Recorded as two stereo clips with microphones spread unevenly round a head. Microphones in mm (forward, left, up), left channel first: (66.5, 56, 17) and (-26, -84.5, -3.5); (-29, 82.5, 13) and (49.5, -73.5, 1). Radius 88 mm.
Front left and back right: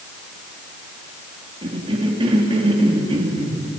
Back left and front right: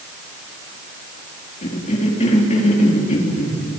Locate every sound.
1.6 s a cough: 170° left, 4 m